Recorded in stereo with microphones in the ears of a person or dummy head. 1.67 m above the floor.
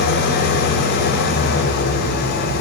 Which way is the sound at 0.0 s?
55° left (ahead or behind).